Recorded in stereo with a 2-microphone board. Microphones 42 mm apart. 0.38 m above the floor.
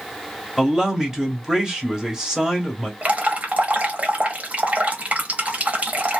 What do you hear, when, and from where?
0.6 s a man speaking: 20° right (ahead or behind), 0.9 m
3.0 s dripping: 35° right (ahead or behind), 0.9 m